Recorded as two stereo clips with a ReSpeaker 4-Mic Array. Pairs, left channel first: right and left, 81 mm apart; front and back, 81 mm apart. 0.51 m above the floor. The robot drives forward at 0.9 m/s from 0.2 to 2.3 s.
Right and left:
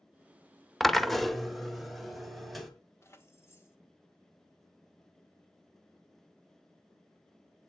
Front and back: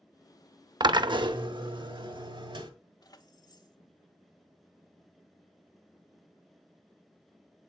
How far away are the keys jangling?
About 1.4 m.